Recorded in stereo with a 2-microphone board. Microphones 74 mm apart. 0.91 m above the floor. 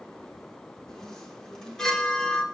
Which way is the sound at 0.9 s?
10° left (ahead or behind).